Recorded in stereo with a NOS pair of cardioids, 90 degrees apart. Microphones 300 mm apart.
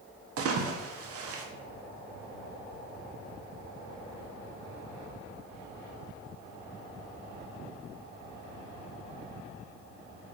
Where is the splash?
50° right, 0.6 m.